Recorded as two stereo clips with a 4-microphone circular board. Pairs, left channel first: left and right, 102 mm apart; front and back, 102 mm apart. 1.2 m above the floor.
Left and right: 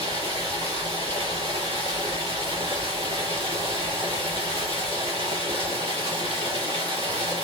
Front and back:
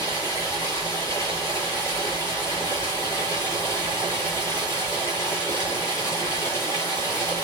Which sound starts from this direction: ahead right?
Running water, at 0.0 s.